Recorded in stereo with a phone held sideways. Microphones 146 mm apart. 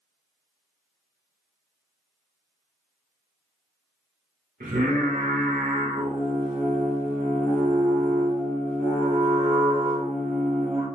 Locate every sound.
4.6 s singing: 75° right (ahead or behind), 2 m